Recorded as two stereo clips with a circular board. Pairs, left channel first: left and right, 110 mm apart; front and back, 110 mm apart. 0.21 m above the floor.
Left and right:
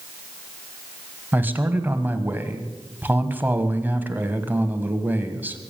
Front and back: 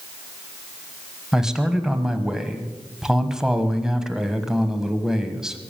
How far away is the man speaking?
About 1.3 m.